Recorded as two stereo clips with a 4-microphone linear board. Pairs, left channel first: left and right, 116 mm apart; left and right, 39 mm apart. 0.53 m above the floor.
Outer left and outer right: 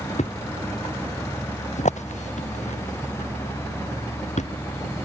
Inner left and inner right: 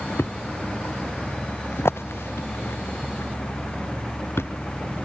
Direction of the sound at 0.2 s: 80° left.